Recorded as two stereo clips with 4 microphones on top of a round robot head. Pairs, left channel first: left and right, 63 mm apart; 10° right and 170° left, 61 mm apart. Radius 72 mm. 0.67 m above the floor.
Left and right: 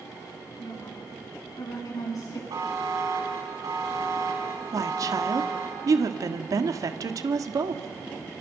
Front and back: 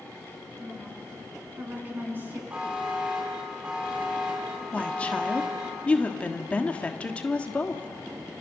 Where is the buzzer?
110° right, 5.5 m.